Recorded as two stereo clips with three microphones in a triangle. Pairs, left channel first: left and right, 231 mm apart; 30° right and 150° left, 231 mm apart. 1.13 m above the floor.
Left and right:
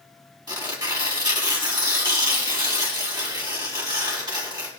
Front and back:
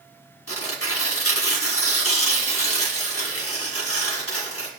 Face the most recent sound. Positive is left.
turn(degrees=-15)